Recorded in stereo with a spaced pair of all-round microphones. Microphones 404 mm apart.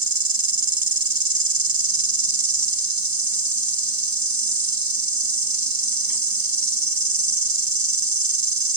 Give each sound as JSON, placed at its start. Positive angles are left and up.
{"t": 0.0, "sound": "an insect", "side_deg": -55, "distance_m": 1.2}